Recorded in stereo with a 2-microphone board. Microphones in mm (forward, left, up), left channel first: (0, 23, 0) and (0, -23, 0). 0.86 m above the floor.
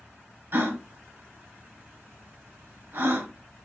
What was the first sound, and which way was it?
A gasp, 60° right (ahead or behind).